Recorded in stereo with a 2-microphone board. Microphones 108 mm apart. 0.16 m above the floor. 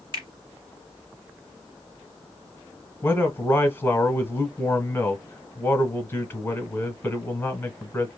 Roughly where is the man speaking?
Centre.